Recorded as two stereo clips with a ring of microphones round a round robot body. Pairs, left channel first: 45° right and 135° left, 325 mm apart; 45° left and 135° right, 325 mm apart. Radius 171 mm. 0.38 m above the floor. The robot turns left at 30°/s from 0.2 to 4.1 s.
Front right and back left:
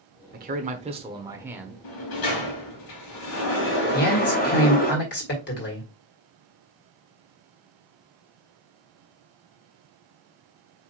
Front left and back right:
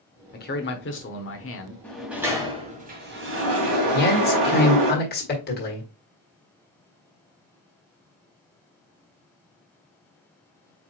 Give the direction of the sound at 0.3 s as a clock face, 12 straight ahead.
9 o'clock.